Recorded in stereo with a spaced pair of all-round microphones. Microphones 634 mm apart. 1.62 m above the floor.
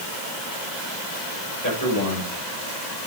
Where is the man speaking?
25° left (ahead or behind), 7.5 m.